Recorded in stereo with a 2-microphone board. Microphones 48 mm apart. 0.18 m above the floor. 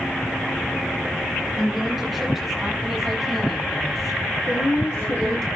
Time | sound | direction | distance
1.6 | a woman speaking | centre (ahead or behind) | 7.5 m
4.5 | a woman speaking | 60° left (ahead or behind) | 3.5 m